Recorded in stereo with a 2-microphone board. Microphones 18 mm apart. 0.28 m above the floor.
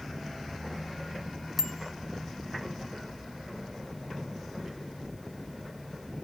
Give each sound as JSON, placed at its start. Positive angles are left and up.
{"t": 1.6, "sound": "a bicycle bell", "side_deg": -5, "distance_m": 2.0}